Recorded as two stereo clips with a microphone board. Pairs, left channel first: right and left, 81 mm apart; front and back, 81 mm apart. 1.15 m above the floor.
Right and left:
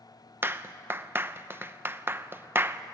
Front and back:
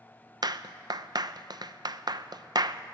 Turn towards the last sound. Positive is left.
turn(degrees=150)